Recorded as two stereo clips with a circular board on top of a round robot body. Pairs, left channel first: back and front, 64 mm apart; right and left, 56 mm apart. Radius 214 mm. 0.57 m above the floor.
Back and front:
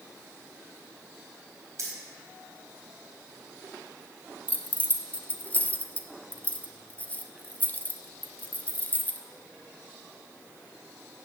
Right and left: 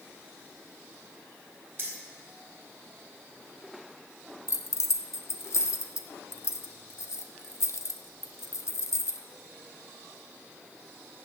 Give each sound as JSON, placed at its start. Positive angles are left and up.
{"t": 1.8, "sound": "keys jangling", "azimuth_deg": 30, "distance_m": 3.5}
{"t": 4.5, "sound": "keys jangling", "azimuth_deg": -115, "distance_m": 1.1}